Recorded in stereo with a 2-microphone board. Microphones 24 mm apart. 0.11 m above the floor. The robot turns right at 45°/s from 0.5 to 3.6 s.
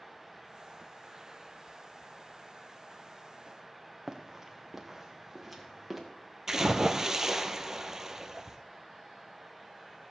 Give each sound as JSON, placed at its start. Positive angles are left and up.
{"t": 4.1, "sound": "running footsteps", "side_deg": -15, "distance_m": 2.0}
{"t": 6.5, "sound": "a splash", "side_deg": -20, "distance_m": 1.1}